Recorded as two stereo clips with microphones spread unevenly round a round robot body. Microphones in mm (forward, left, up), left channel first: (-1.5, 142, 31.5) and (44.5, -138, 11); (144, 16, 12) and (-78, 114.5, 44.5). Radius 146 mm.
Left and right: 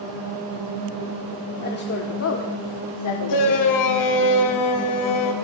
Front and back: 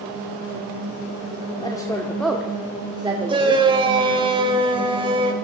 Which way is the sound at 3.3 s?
85° left.